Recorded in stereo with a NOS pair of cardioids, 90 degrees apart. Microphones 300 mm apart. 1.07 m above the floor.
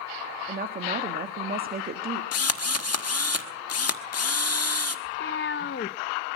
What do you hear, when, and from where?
0.5 s a woman speaking: 30° right, 1.7 m
2.3 s a drill: 55° left, 1.3 m
5.0 s a cat meowing: 40° left, 0.6 m